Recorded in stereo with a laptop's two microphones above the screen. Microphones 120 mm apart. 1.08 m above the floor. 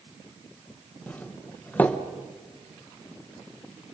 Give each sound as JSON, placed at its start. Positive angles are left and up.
{"t": 1.1, "sound": "a doorbell", "side_deg": 15, "distance_m": 1.3}